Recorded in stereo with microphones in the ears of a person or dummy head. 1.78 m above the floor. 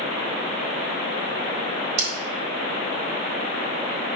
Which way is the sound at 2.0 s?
40° right (ahead or behind).